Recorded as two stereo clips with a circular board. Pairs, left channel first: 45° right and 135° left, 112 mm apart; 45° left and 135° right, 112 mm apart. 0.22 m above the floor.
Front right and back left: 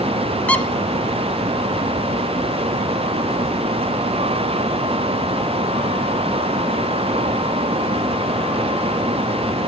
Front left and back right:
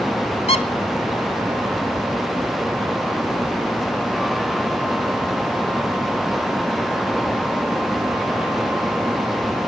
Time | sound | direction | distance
0.5 | a squeak | 30° left | 1.0 m